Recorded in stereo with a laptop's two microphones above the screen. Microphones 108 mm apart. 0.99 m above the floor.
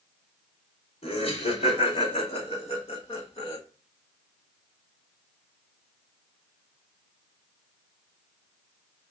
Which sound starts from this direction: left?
Laughter, at 1.0 s.